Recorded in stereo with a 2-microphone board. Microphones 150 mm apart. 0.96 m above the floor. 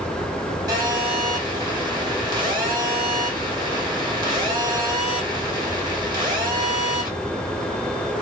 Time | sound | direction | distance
0.7 | a phone buzzing | 25° right (ahead or behind) | 1.5 m